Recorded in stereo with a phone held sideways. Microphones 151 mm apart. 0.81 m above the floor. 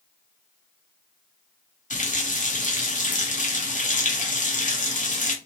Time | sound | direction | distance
1.9 | a running tap | 55° left (ahead or behind) | 0.7 m